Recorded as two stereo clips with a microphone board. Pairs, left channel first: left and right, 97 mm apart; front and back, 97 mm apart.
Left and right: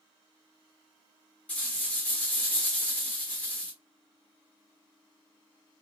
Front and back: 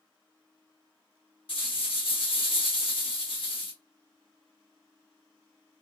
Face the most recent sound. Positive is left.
turn(degrees=15)